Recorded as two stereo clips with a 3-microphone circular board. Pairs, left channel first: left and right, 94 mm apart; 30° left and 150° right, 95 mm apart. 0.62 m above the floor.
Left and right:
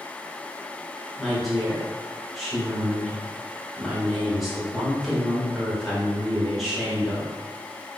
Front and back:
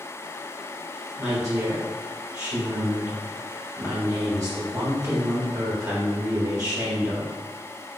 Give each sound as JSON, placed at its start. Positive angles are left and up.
{"t": 1.2, "sound": "a woman speaking", "azimuth_deg": 180, "distance_m": 1.2}